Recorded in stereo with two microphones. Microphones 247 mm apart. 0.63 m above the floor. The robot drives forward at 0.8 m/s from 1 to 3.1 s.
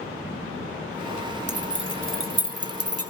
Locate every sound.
1.5 s keys jangling: 45° right (ahead or behind), 1.7 m; by 3.1 s 75° right (ahead or behind), 1.2 m